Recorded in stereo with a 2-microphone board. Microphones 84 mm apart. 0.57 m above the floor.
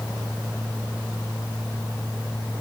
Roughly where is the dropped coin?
I don't hear a dropped coin.